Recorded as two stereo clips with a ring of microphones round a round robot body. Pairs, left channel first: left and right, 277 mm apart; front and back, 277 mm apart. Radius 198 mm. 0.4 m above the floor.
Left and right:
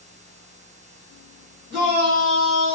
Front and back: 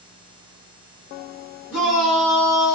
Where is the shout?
5° left, 1.7 m.